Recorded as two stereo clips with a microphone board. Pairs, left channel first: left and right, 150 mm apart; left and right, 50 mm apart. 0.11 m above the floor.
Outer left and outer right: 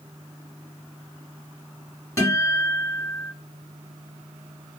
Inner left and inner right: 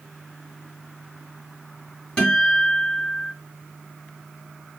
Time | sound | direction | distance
2.2 | a guitar | 20° left (ahead or behind) | 1.7 m